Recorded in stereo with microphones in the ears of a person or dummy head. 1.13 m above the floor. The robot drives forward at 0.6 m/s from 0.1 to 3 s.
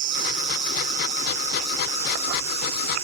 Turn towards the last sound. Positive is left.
turn(degrees=-35)  # may be behind; listen again after turning